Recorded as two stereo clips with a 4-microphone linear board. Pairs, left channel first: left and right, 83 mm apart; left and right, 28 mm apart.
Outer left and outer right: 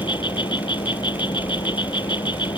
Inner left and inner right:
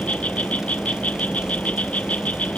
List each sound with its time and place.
0.0 s an insect: 65° left (ahead or behind)